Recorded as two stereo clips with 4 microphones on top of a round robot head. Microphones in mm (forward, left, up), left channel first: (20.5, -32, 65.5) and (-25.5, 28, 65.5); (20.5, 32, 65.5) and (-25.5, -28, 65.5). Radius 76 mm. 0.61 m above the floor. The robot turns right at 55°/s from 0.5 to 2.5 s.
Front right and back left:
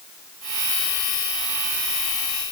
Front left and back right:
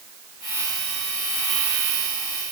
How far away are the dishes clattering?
I don't hear dishes clattering.